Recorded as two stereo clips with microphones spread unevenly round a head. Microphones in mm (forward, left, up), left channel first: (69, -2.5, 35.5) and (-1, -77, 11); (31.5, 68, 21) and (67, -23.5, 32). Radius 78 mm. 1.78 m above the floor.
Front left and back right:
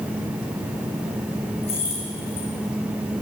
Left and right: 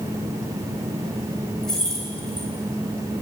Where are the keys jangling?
25° left, 8.5 m.